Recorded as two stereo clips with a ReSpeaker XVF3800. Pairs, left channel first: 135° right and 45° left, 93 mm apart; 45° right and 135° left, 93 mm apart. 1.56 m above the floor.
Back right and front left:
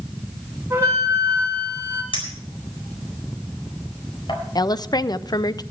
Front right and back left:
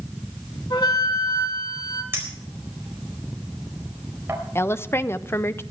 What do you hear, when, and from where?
0.7 s a flute: 20° right, 4 m
2.1 s a clink: 160° right, 4 m
4.5 s a woman speaking: 105° right, 0.5 m